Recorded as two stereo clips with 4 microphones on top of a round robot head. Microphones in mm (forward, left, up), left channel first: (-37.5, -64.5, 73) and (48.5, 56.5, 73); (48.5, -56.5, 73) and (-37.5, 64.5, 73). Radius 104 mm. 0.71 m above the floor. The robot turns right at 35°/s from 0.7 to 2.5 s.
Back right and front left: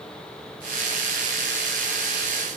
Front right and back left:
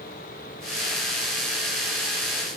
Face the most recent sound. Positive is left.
No sound to turn to.